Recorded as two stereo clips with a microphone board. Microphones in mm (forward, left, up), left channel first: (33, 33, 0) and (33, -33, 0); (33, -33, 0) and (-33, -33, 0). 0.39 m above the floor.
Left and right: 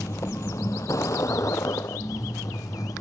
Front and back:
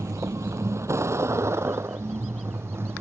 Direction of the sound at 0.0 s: 135° left.